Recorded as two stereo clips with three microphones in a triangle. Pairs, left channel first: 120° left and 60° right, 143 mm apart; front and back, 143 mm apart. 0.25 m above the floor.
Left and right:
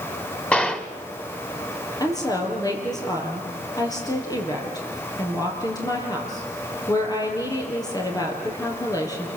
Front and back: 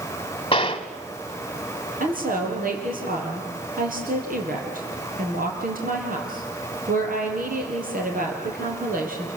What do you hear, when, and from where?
0.5 s a gunshot: 40° left, 1.1 m
2.0 s a woman speaking: 175° right, 5.5 m